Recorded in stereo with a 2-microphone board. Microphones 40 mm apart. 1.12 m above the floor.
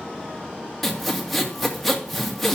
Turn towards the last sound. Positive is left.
turn(degrees=5)  # may be behind; listen again after turning